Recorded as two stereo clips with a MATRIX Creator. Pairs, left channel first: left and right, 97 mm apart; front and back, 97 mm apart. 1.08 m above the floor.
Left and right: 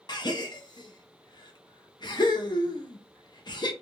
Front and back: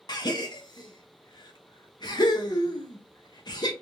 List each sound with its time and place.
0.1 s a gasp: 45° left, 0.7 m